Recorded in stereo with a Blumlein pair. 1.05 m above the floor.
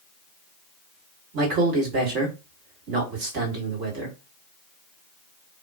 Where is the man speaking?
40° right, 1.4 m.